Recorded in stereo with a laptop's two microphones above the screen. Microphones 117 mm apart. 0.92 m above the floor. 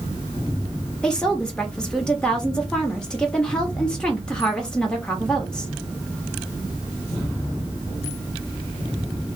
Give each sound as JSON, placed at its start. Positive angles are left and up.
{"t": 1.0, "sound": "a woman speaking", "side_deg": 5, "distance_m": 1.4}